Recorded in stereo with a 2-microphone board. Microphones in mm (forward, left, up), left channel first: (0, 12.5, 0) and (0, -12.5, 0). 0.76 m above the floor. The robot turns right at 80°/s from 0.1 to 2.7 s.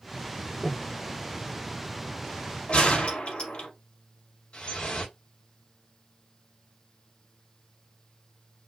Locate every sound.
0.6 s breathing: 25° left (ahead or behind), 1.9 m; by 0.9 s 5° left (ahead or behind), 1.9 m
2.7 s a gunshot: 50° left (ahead or behind), 3 m
4.5 s dripping: 45° left (ahead or behind), 1.5 m